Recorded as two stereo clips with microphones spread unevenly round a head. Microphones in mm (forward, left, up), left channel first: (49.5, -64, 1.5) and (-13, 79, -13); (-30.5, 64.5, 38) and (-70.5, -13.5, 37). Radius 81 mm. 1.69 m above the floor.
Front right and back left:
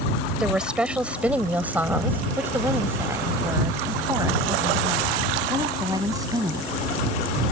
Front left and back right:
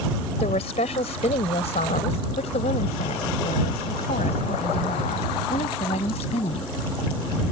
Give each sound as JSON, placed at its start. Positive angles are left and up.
{"t": 0.4, "sound": "a woman speaking", "azimuth_deg": 25}